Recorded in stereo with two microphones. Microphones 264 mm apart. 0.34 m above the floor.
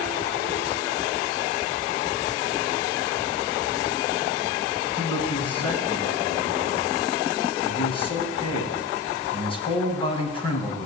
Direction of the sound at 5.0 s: 20° left (ahead or behind).